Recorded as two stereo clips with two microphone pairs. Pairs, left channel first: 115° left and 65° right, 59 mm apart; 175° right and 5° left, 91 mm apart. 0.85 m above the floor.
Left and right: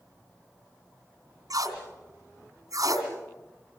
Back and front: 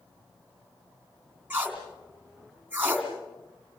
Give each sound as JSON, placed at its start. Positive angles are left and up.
{"t": 1.5, "sound": "tape being pulled", "azimuth_deg": -70, "distance_m": 3.0}